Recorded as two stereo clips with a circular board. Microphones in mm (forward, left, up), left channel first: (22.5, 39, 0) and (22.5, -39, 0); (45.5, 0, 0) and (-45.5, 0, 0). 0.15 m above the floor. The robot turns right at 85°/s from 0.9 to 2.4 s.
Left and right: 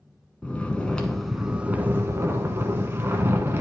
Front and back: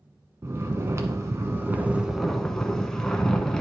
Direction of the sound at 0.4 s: 155° left.